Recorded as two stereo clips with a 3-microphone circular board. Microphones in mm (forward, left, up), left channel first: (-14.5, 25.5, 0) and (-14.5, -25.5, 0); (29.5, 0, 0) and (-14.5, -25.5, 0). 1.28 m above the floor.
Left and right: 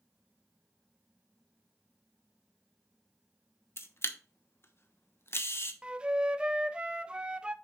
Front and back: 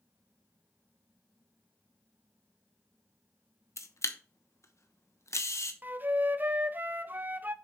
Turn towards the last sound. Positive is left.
turn(degrees=-150)